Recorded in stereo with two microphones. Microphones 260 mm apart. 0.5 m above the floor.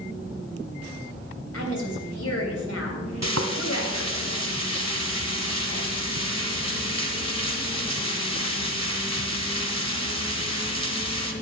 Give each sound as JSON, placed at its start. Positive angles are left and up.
{"t": 1.5, "sound": "a woman speaking", "side_deg": 65, "distance_m": 3.0}
{"t": 3.2, "sound": "frying", "side_deg": -85, "distance_m": 1.5}